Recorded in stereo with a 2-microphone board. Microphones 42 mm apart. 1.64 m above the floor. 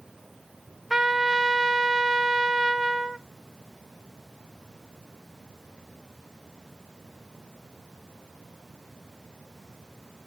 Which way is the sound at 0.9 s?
5° right (ahead or behind).